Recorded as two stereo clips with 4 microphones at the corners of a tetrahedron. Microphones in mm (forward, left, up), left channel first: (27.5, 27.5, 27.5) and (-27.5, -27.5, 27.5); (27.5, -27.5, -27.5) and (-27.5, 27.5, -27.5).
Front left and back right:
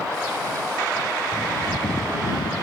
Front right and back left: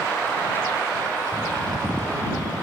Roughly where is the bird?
Left.